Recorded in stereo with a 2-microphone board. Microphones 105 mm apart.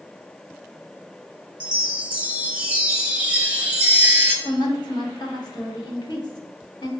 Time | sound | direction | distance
1.6 | a chime | 10° right (ahead or behind) | 0.8 m
4.5 | a woman speaking | 40° left (ahead or behind) | 1.1 m